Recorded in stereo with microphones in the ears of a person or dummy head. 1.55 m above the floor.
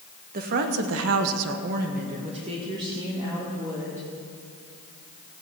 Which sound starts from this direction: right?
A woman speaking, at 0.3 s.